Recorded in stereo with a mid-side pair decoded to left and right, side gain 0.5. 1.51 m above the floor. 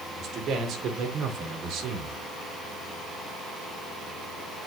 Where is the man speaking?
60° right, 5.5 m; by 2.2 s 75° right, 4 m.